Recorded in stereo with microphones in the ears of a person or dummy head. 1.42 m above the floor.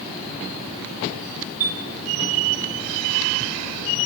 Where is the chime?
45° right (ahead or behind), 5.5 m.